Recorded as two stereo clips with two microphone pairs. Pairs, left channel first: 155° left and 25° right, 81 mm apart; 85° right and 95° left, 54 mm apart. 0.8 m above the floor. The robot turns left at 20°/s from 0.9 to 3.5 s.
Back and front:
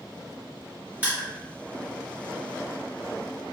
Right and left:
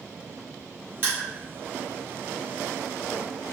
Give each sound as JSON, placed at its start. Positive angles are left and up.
{"t": 1.0, "sound": "crushing", "azimuth_deg": 45, "distance_m": 1.9}